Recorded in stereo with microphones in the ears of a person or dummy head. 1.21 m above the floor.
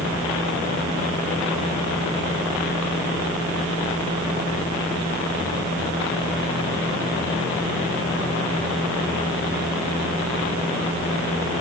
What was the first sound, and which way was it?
Only background noise.